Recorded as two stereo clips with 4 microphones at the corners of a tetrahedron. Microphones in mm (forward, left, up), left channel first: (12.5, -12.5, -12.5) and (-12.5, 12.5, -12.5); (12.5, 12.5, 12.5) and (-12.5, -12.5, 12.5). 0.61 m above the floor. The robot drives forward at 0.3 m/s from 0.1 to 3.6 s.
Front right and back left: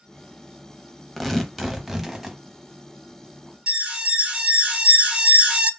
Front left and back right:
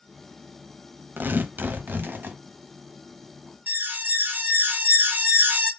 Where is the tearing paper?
125° right, 0.6 m; by 2.4 s 145° right, 0.9 m.